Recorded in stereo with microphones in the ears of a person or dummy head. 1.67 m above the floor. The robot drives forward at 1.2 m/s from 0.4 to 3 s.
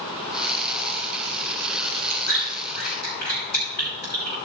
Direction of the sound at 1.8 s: 65° left (ahead or behind).